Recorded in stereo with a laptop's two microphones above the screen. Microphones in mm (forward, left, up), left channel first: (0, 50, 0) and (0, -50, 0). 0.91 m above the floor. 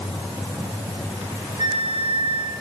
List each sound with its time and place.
1.6 s a flute: 70° right (ahead or behind), 4 m